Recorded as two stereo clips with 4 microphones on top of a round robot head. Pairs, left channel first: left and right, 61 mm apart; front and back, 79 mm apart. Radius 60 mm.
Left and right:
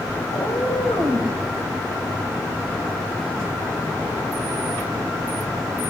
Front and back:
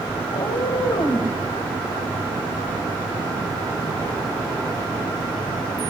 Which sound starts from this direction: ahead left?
A cat meowing, at 0.3 s.